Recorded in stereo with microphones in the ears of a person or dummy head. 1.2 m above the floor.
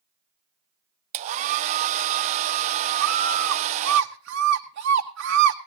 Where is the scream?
75° right (ahead or behind), 1.0 m.